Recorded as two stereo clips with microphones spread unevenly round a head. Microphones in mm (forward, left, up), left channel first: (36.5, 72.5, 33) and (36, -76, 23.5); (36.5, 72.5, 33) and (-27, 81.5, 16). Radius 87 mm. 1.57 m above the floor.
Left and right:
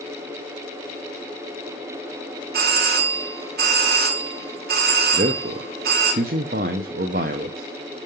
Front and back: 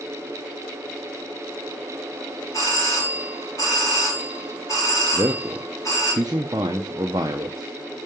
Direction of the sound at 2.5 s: 75° right.